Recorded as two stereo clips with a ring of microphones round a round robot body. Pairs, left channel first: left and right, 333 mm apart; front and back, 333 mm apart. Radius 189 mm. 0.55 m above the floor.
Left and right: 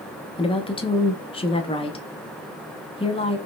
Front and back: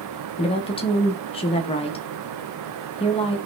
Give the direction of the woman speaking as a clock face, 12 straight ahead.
11 o'clock.